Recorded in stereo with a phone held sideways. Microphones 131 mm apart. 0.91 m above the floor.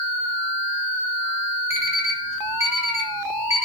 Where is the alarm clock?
55° left (ahead or behind), 1.0 m.